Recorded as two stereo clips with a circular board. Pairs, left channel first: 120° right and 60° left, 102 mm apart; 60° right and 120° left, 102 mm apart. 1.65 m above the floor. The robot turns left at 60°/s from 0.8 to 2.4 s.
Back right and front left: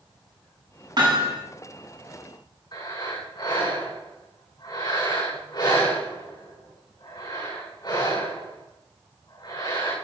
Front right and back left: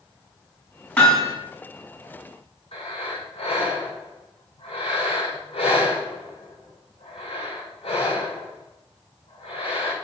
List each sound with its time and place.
1.0 s hammering: 20° left, 7 m; by 1.4 s 5° right, 7 m
2.7 s breathing: 75° right, 6.5 m